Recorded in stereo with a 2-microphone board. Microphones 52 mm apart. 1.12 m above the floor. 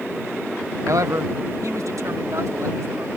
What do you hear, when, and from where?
0.8 s a man speaking: 75° right (ahead or behind); by 3.1 s 90° right